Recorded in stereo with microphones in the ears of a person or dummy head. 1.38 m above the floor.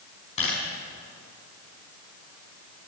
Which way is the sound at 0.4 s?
35° left (ahead or behind).